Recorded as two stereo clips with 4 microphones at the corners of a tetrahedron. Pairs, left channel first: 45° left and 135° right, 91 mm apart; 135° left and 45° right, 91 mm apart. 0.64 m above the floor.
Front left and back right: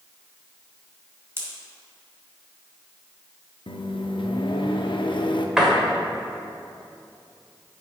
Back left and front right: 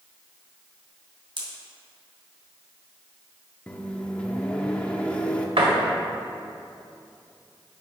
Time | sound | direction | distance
1.4 | a pop | 75° right | 1.9 m
3.7 | a microwave | 60° left | 0.6 m
5.6 | a door slam | 50° right | 1.5 m